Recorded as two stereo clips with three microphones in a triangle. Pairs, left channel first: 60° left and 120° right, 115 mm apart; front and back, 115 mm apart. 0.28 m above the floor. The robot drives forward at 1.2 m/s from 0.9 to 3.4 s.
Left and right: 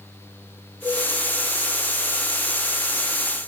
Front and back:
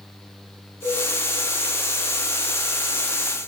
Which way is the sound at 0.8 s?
5° right.